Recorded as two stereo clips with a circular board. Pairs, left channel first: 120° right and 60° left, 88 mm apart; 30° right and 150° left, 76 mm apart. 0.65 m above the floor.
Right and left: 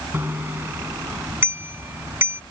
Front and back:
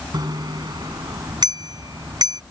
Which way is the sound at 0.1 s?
125° left.